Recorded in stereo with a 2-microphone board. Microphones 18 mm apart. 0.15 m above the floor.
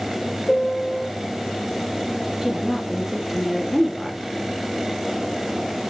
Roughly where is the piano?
Left.